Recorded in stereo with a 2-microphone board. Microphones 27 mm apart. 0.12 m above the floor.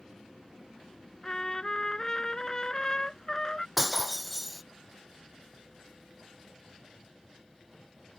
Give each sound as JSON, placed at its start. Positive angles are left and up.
{"t": 1.2, "sound": "a trumpet", "side_deg": 25}
{"t": 3.8, "sound": "breaking glass", "side_deg": -5}